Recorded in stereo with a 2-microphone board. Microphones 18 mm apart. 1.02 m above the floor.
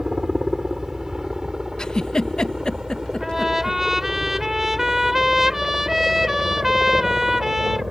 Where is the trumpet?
20° right (ahead or behind).